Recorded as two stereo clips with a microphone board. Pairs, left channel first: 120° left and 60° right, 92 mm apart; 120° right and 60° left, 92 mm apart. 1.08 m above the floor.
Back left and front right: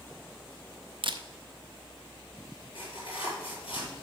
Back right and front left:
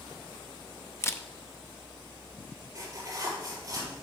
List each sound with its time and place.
1.0 s a camera shutter: 60° right, 0.6 m
2.8 s tearing paper: 110° left, 4 m